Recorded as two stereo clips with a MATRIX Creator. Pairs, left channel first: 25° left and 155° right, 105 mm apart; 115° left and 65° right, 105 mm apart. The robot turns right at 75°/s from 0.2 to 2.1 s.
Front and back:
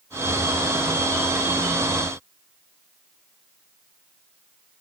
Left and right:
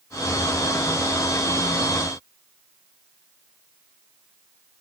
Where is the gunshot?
No gunshot in this recording.